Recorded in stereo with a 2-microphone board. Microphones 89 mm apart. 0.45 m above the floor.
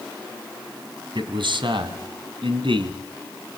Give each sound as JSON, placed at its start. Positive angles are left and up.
{"t": 1.1, "sound": "a man speaking", "side_deg": -70, "distance_m": 3.0}